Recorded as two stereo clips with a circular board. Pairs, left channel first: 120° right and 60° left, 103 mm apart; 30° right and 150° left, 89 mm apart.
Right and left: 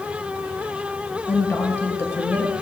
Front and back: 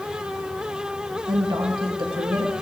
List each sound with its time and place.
1.3 s a woman speaking: 175° left, 1.9 m